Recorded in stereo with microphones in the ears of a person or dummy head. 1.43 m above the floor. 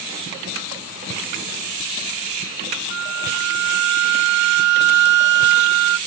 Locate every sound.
2.9 s a flute: 55° right (ahead or behind), 0.6 m